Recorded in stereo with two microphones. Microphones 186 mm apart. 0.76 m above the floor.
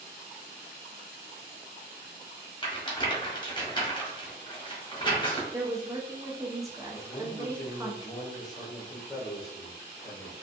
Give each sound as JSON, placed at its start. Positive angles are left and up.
{"t": 2.6, "sound": "a rattle", "side_deg": 25, "distance_m": 0.8}
{"t": 5.5, "sound": "a woman speaking", "side_deg": -15, "distance_m": 0.5}
{"t": 6.9, "sound": "a man speaking", "side_deg": 20, "distance_m": 0.9}